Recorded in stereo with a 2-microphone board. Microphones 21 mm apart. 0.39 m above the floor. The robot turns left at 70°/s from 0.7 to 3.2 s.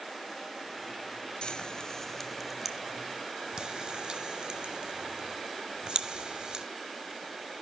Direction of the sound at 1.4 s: 60° left (ahead or behind).